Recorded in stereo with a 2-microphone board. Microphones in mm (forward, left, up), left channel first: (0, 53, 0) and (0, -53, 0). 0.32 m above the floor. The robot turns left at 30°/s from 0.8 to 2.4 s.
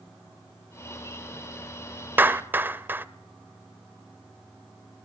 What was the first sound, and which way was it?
A clap, 20° right (ahead or behind).